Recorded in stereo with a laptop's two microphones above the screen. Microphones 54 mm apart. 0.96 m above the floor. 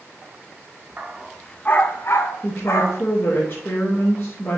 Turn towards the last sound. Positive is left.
turn(degrees=40)  # may be behind; listen again after turning